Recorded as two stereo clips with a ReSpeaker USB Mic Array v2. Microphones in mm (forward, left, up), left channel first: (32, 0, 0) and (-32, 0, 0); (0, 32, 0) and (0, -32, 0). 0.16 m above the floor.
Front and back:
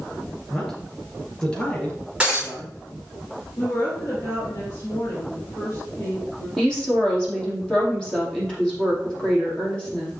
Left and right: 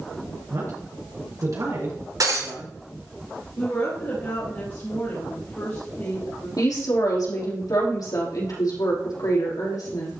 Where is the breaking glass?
105° right, 5 m.